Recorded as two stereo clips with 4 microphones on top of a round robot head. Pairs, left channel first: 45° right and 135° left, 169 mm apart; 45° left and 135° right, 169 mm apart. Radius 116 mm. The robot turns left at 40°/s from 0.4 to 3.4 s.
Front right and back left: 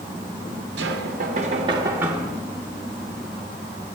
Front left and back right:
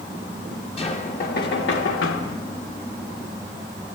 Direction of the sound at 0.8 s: 105° left.